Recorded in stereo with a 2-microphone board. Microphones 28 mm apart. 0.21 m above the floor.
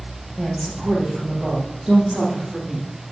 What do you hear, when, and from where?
0.4 s a woman speaking: 25° right (ahead or behind), 6.5 m; by 2.9 s 35° right (ahead or behind), 7.5 m